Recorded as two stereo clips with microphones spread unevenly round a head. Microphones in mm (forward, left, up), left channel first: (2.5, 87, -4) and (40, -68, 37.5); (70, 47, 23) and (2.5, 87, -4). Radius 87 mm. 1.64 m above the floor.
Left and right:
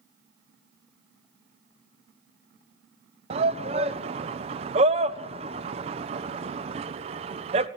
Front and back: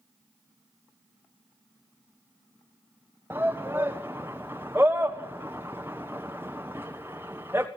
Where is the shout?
135° right, 1.1 m.